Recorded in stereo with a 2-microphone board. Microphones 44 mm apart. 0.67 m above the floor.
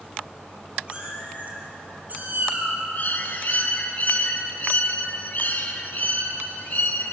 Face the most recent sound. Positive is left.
turn(degrees=45)  # may be behind; listen again after turning